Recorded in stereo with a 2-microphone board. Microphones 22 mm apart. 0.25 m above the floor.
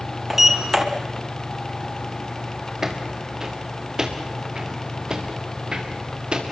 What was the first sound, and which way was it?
A sliding door, 15° right (ahead or behind).